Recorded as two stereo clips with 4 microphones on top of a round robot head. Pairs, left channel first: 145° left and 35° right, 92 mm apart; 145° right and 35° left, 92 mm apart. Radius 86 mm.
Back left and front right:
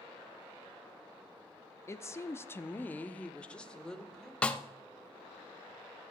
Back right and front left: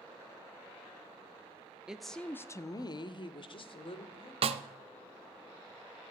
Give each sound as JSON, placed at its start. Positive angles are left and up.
{"t": 1.9, "sound": "a woman speaking", "azimuth_deg": 110, "distance_m": 0.8}
{"t": 4.4, "sound": "a snare drum", "azimuth_deg": 65, "distance_m": 0.5}